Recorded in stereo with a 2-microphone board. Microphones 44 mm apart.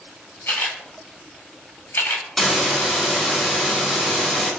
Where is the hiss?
5° left (ahead or behind), 1.5 m.